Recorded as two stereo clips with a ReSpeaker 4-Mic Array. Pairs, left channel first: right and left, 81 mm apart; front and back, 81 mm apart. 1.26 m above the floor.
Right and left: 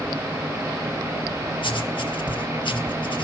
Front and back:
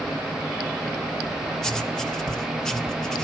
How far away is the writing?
About 1.5 m.